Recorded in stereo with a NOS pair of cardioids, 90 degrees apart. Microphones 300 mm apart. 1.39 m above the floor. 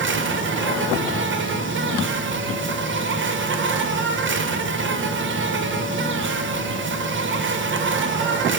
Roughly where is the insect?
Ahead right.